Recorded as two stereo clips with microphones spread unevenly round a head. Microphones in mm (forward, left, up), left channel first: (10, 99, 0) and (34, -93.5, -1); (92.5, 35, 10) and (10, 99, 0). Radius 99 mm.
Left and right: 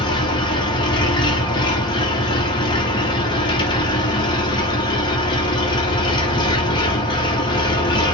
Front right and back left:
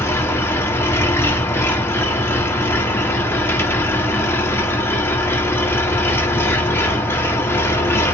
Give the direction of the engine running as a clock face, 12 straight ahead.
11 o'clock.